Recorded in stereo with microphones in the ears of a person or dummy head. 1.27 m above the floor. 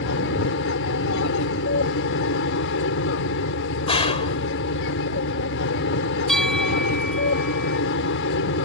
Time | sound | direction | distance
0.0 | an aircraft | 60° left (ahead or behind) | ?
3.9 | a gunshot | 30° left (ahead or behind) | ?
6.3 | a bell | centre (ahead or behind) | ?